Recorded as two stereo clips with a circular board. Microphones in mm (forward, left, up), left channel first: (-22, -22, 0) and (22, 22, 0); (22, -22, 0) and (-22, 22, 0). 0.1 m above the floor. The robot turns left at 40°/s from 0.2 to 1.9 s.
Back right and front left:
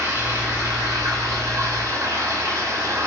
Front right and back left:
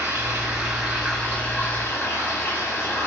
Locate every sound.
0.0 s running water: 80° left, 1.0 m; by 3.1 s 10° left, 1.0 m